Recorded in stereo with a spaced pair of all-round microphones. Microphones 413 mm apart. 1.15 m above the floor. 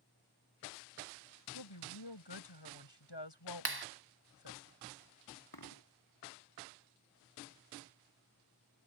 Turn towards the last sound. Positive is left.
turn(degrees=60)  # may be behind; listen again after turning